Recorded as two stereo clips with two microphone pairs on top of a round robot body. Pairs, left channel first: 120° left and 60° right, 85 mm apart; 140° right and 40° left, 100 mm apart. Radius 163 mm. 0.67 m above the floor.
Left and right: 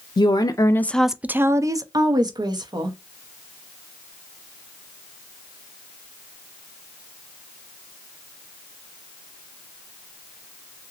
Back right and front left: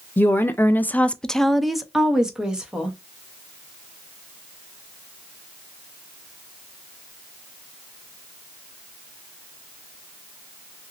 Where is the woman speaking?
155° left, 0.6 m; by 3.0 s 40° right, 1.2 m.